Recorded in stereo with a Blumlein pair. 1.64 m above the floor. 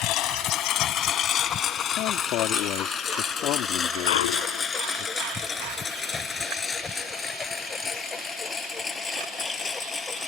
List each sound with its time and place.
0.0 s a lawn mower: 35° left; by 10.3 s 15° left
2.0 s a man speaking: 40° left
4.1 s a clunk: 55° left